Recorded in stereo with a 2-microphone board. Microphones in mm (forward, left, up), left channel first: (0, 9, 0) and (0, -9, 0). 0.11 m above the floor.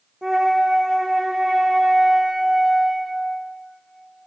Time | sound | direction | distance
0.2 | a flute | 45° right (ahead or behind) | 1.6 m